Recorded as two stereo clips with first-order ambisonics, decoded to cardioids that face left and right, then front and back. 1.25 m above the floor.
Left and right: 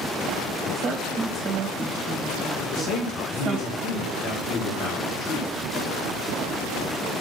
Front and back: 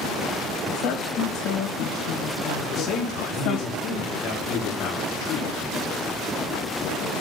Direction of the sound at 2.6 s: 45° left.